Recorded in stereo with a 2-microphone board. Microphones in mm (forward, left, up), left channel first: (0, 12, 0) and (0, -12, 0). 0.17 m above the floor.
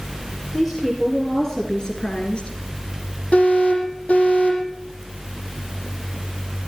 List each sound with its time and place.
0.5 s a woman speaking: centre (ahead or behind), 3.5 m; by 2.5 s 50° left (ahead or behind), 2.5 m
3.3 s an alarm: 65° left (ahead or behind), 9.5 m